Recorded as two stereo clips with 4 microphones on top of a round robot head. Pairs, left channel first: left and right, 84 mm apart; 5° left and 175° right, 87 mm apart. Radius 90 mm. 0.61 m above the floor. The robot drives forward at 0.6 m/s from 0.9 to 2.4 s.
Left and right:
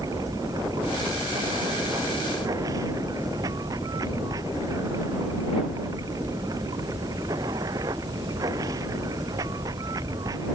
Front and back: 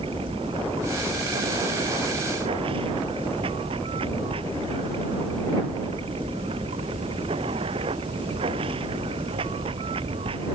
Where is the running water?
145° right.